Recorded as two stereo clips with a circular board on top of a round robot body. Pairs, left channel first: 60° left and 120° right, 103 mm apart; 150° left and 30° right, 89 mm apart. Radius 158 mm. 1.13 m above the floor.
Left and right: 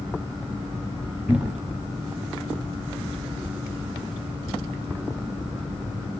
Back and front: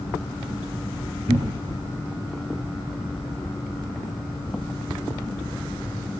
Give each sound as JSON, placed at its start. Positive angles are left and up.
{"t": 1.3, "sound": "a cupboard door", "azimuth_deg": -40, "distance_m": 0.8}